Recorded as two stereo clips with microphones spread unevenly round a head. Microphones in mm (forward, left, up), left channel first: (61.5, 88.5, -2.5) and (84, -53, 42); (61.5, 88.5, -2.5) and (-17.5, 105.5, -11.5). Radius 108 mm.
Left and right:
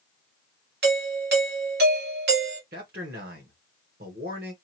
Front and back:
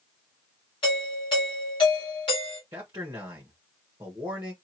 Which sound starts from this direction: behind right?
A man speaking, at 2.7 s.